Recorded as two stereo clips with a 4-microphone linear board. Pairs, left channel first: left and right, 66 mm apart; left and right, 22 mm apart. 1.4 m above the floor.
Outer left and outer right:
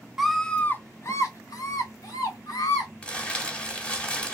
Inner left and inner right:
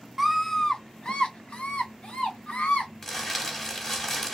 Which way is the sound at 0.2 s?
5° right (ahead or behind).